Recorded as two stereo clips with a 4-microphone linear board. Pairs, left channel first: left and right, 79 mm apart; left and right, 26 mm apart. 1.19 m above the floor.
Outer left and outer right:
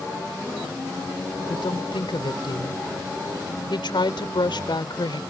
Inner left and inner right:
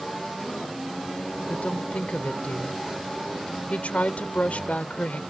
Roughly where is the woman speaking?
Left.